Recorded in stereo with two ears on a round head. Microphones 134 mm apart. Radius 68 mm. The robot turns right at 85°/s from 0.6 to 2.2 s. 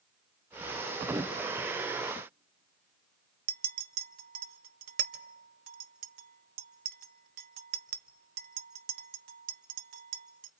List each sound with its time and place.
1.1 s a whoosh: 30° right (ahead or behind), 0.6 m; by 1.4 s 5° right (ahead or behind), 0.6 m
3.5 s a clink: 65° right (ahead or behind), 0.6 m